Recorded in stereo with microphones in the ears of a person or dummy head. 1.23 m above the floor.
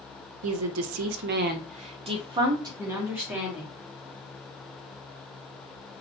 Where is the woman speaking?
75° right (ahead or behind), 0.7 m; by 3.7 s centre (ahead or behind), 1.5 m.